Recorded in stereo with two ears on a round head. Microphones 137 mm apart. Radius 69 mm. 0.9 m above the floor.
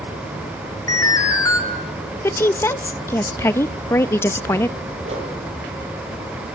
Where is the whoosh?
45° right (ahead or behind), 7.5 m.